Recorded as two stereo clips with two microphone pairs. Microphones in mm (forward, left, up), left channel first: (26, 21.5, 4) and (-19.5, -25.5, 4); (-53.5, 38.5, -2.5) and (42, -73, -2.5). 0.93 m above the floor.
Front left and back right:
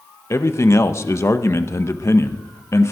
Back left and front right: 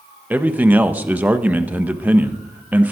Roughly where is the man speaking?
Ahead left.